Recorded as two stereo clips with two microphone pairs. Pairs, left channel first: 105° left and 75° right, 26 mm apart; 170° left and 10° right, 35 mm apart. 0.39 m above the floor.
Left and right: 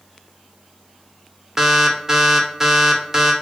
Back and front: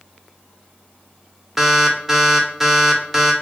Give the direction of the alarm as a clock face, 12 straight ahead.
3 o'clock.